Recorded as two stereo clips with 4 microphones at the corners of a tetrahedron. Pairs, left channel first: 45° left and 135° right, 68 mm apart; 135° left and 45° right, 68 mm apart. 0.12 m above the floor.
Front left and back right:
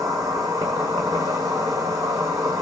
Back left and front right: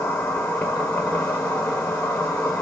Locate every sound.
0.0 s an insect: 165° right, 1.2 m